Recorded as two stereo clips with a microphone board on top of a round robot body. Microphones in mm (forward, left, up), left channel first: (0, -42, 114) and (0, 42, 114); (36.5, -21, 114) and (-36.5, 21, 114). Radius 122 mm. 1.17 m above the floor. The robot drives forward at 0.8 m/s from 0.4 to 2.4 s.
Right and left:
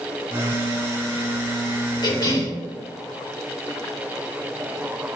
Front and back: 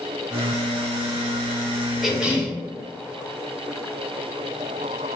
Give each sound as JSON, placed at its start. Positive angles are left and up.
{"t": 2.0, "sound": "a cough", "azimuth_deg": -120, "distance_m": 0.9}